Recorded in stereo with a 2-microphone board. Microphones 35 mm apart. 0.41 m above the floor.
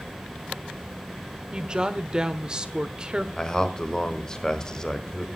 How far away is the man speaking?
About 1.2 m.